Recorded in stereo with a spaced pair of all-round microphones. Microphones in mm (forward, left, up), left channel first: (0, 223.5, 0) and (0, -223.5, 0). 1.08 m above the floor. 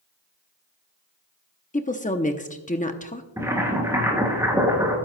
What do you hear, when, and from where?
1.7 s a woman speaking: 15° left (ahead or behind), 0.7 m
3.4 s boiling: 5° right (ahead or behind), 3 m